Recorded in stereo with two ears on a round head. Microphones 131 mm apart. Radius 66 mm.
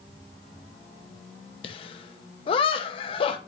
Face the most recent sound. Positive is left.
turn(degrees=35)  # may be behind; listen again after turning